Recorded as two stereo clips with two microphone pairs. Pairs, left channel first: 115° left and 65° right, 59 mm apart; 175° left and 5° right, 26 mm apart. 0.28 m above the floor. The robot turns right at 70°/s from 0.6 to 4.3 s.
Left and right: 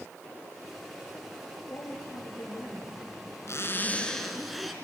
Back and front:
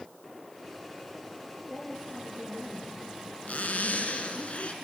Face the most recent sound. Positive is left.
turn(degrees=-155)